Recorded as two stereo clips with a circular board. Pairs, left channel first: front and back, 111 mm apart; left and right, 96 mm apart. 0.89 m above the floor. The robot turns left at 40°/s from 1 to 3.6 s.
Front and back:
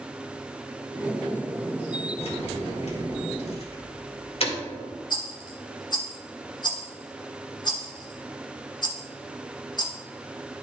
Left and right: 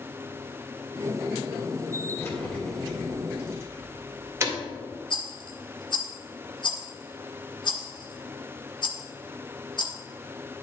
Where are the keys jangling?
30° left, 2 m; by 4.6 s 25° right, 2 m.